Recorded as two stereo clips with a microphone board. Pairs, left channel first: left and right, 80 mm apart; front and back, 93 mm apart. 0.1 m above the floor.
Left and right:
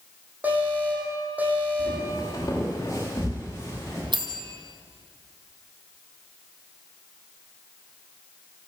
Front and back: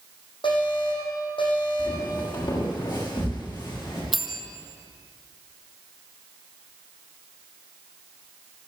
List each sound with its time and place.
0.4 s an alarm: 20° right, 7.5 m
1.8 s footsteps: 40° left, 8.5 m; by 4.0 s 35° left, 11 m
4.1 s a bell: 90° right, 2.5 m